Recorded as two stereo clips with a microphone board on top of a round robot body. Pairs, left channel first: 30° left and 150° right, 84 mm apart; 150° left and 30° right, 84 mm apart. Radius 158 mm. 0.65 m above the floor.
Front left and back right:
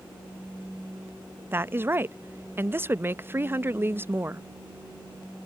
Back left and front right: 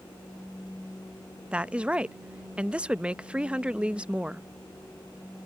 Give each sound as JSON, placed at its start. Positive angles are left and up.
{"t": 1.5, "sound": "a woman speaking", "azimuth_deg": -100}